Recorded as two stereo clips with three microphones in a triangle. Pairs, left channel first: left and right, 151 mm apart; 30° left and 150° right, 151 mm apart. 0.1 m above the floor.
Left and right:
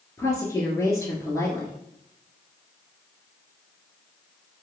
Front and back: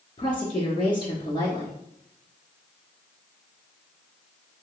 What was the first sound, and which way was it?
A woman speaking, 35° left.